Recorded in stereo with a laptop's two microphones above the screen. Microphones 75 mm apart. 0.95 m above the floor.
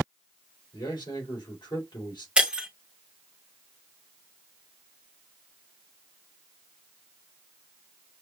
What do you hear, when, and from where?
0.7 s a man speaking: 80° left, 2.5 m
2.4 s breaking glass: 10° right (ahead or behind), 0.9 m